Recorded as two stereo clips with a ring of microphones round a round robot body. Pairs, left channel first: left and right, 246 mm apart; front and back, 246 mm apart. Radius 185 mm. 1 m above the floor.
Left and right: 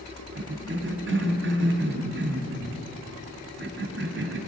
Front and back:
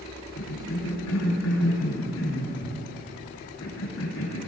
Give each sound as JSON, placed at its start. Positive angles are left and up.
{"t": 0.3, "sound": "a cough", "azimuth_deg": -45, "distance_m": 1.9}